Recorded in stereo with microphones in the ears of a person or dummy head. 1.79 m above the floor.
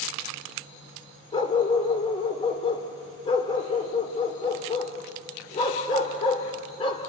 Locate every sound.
1.3 s a dog barking: 30° left (ahead or behind), 2.5 m